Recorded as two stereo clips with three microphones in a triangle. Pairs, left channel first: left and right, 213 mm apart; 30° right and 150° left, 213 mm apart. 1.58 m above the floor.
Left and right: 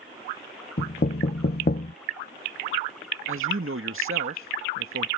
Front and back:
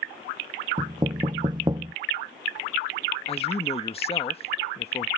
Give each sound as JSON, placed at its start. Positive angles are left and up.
{"t": 0.8, "sound": "knocking", "azimuth_deg": 90}
{"t": 3.3, "sound": "a man speaking", "azimuth_deg": -90}